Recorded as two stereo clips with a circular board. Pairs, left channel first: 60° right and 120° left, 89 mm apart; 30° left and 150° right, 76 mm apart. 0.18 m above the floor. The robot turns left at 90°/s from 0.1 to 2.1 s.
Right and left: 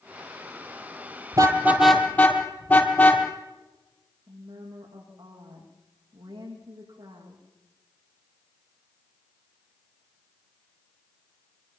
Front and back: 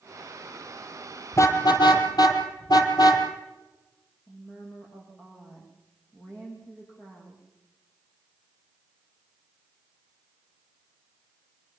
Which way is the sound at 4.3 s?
105° left.